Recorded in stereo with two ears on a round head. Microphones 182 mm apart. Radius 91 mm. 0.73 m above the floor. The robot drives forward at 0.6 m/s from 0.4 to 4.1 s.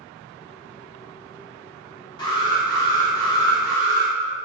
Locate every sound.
2.2 s an alarm: 25° left (ahead or behind), 2 m; by 4.1 s 15° left (ahead or behind), 3 m